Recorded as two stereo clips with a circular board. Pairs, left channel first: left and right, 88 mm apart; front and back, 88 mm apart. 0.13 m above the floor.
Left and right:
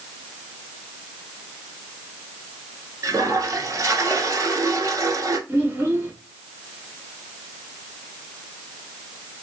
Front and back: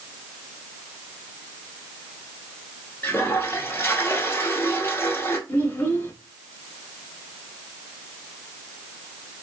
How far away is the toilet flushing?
About 0.9 m.